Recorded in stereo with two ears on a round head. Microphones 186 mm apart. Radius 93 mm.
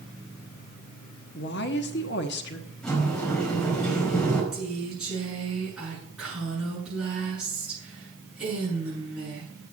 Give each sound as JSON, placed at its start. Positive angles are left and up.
{"t": 1.4, "sound": "a woman speaking", "side_deg": 55, "distance_m": 1.2}
{"t": 2.8, "sound": "a sliding door", "side_deg": 5, "distance_m": 4.5}
{"t": 4.5, "sound": "a woman speaking", "side_deg": -10, "distance_m": 7.0}